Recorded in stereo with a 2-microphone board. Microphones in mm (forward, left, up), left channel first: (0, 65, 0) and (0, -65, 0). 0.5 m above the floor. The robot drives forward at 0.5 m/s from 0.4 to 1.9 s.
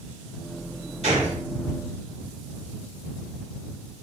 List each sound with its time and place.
1.0 s a gunshot: 55° right (ahead or behind), 1.8 m